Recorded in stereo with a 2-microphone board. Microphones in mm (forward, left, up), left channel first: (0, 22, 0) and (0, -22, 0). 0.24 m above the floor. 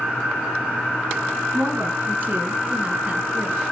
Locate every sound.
1.5 s a woman speaking: 50° right (ahead or behind), 2.5 m; by 3.6 s 20° right (ahead or behind), 3.5 m